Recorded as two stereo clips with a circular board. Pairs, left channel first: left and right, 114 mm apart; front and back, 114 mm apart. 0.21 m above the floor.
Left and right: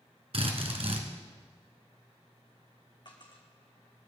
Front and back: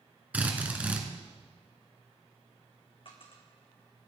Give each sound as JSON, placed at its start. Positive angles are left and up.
{"t": 0.3, "sound": "a drill", "azimuth_deg": -105, "distance_m": 2.5}
{"t": 3.0, "sound": "a dropped coin", "azimuth_deg": 40, "distance_m": 3.5}